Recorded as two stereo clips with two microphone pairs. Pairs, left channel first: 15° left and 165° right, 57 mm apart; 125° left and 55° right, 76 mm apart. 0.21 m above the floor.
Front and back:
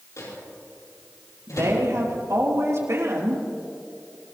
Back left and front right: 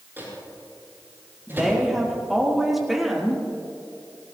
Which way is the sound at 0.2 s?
5° left.